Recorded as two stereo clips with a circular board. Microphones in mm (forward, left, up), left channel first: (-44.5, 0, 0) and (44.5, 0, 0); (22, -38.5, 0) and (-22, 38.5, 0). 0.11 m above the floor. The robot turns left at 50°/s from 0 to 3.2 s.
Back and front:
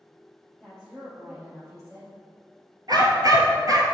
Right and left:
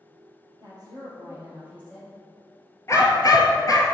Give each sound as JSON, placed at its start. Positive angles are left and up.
{"t": 0.6, "sound": "a woman speaking", "azimuth_deg": 110, "distance_m": 2.5}
{"t": 2.9, "sound": "a dog barking", "azimuth_deg": -15, "distance_m": 0.9}